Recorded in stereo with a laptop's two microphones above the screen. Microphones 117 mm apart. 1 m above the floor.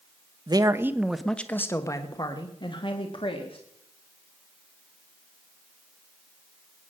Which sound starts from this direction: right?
A man speaking, at 0.5 s.